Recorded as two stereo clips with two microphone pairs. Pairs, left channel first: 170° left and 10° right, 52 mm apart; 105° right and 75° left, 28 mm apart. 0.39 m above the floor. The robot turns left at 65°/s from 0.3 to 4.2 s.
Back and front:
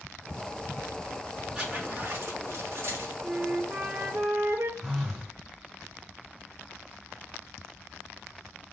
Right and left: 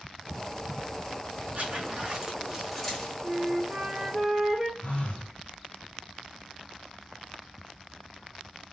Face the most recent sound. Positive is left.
turn(degrees=-90)